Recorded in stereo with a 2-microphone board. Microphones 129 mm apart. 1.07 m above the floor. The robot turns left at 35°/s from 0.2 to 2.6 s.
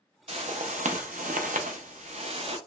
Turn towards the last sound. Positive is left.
turn(degrees=-135)